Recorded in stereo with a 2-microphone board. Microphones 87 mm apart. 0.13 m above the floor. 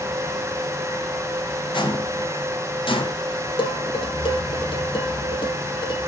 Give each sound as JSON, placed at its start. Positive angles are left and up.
{"t": 1.7, "sound": "footsteps", "side_deg": 65, "distance_m": 4.0}
{"t": 3.6, "sound": "dishes clattering", "side_deg": 70, "distance_m": 3.0}